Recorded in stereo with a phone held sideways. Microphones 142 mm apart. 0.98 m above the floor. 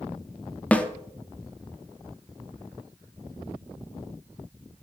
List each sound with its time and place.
0.7 s a snare drum: 10° left (ahead or behind), 0.5 m